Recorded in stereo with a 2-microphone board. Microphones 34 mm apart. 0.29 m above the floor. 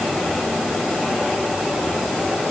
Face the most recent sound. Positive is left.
No sound to turn to.